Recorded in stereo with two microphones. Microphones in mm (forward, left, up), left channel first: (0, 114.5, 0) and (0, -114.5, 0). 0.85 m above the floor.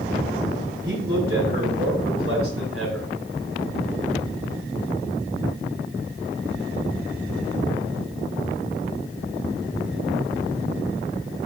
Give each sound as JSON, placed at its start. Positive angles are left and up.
{"t": 0.8, "sound": "a man speaking", "side_deg": -60, "distance_m": 4.5}